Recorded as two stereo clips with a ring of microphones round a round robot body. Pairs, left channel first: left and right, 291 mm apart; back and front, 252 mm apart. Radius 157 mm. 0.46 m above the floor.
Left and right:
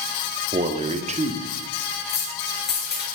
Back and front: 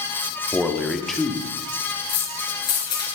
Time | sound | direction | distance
0.5 | a man speaking | 95° right | 1.2 m
2.1 | keys jangling | 150° left | 6.5 m